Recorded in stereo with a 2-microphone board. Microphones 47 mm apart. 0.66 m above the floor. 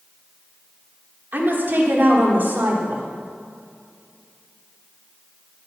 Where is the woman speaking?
45° right (ahead or behind), 1.7 m.